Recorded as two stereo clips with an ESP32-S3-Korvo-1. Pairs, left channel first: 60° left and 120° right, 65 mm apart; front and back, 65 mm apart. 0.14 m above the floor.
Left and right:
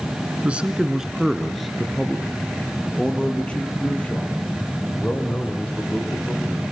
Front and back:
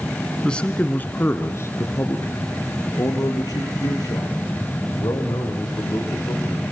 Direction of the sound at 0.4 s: 70° right.